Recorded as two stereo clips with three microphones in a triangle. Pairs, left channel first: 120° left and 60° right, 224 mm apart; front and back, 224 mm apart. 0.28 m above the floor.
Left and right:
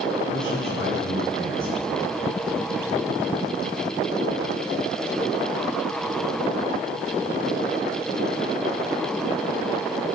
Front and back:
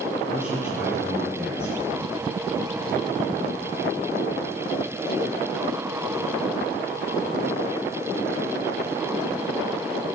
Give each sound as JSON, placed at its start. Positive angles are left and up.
{"t": 0.3, "sound": "a man speaking", "azimuth_deg": 100, "distance_m": 5.5}